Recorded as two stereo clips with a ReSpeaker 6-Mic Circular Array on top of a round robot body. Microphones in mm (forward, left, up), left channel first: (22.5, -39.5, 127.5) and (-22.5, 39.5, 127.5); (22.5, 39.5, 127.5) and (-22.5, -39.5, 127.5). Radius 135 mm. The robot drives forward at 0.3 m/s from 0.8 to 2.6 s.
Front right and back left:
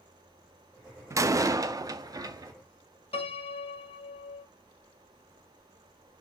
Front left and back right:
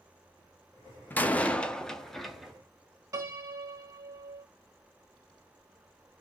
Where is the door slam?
110° left, 0.7 m; by 2.5 s 150° left, 0.9 m.